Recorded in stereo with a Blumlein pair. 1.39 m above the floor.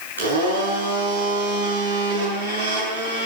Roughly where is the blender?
Right.